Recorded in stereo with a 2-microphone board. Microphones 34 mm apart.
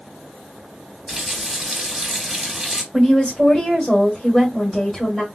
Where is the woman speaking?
10° left (ahead or behind), 1.5 m.